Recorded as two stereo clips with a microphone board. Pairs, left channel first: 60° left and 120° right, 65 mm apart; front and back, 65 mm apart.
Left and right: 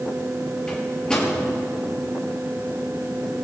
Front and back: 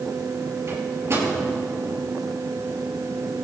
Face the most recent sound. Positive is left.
turn(degrees=135)